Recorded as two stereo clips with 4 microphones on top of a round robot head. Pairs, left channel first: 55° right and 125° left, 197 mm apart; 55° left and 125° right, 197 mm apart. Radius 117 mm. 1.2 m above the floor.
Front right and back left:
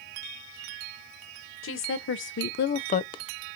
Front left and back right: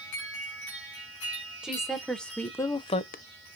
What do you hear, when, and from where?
1.6 s a woman speaking: 35° right, 1.4 m; by 3.2 s 15° left, 0.5 m